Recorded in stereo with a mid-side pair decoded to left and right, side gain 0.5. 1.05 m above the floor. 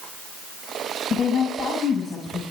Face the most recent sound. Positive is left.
turn(degrees=35)